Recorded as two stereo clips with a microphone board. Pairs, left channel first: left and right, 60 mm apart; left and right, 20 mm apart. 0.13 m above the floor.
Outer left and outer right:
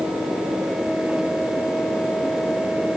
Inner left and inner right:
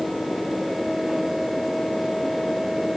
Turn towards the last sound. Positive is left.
No sound to turn to.